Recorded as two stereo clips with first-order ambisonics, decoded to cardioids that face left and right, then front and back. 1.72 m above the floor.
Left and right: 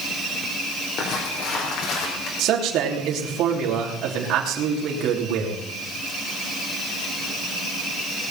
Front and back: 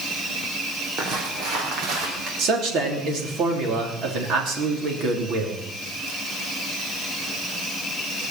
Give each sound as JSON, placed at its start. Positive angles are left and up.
{"t": 1.0, "sound": "footsteps", "azimuth_deg": 130, "distance_m": 3.5}
{"t": 2.4, "sound": "a man speaking", "azimuth_deg": -135, "distance_m": 3.0}